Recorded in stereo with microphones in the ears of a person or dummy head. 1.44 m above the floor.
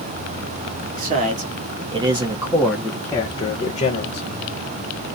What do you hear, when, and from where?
0.9 s a man speaking: 45° right (ahead or behind), 1.2 m; by 4.3 s 50° left (ahead or behind), 1.0 m